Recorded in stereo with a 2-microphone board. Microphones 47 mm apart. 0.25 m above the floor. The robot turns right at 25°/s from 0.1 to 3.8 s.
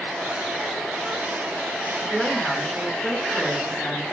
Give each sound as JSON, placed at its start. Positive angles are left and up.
{"t": 2.0, "sound": "a woman speaking", "side_deg": 20, "distance_m": 1.4}